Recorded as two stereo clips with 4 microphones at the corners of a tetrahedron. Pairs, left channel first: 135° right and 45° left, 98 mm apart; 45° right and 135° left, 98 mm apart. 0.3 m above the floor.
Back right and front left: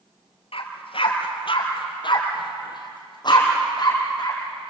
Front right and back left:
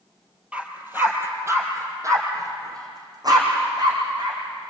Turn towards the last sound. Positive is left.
turn(degrees=180)